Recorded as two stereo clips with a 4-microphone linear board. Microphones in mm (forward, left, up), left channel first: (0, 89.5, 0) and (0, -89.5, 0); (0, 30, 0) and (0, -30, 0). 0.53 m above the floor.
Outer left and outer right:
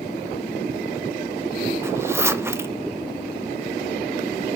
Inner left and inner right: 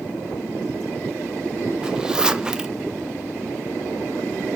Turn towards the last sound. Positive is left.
turn(degrees=-15)  # may be behind; listen again after turning